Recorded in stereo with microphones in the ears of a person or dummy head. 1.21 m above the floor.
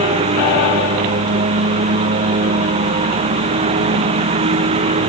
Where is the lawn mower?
35° right (ahead or behind).